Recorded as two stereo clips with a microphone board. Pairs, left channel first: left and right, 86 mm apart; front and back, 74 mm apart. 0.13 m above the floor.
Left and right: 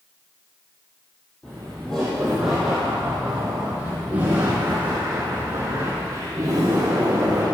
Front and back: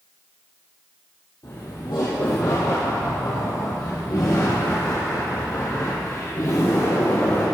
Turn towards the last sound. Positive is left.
turn(degrees=-45)